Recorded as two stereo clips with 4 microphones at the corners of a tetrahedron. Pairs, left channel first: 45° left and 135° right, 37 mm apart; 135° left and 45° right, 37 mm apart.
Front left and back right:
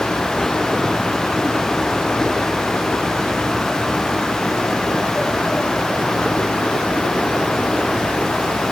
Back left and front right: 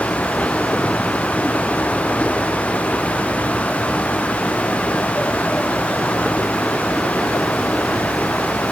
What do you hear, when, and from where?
Only background noise.